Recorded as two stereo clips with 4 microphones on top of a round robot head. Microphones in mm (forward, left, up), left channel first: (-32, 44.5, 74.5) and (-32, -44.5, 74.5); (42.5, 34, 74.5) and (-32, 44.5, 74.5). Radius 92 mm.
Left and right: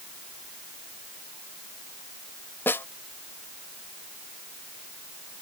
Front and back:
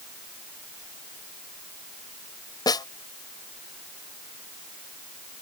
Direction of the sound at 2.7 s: 20° left.